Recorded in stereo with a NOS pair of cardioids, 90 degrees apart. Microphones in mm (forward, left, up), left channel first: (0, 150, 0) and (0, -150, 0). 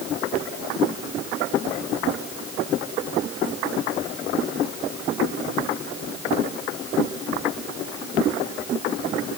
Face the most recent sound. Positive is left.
No sound to turn to.